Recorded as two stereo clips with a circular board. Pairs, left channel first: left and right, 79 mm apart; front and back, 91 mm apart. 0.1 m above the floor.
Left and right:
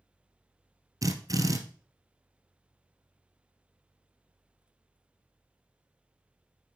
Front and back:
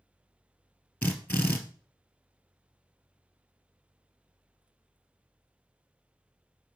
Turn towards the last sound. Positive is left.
turn(degrees=-70)